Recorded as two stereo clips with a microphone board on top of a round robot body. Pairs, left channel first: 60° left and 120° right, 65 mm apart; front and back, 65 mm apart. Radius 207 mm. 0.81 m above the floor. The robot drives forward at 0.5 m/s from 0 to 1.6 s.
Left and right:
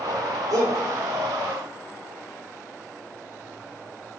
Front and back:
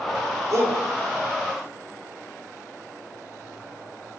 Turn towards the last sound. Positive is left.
turn(degrees=-145)